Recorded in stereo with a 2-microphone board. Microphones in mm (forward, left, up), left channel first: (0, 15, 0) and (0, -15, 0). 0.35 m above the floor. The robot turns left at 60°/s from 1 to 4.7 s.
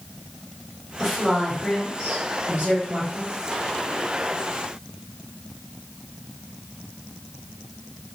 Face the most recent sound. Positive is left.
turn(degrees=145)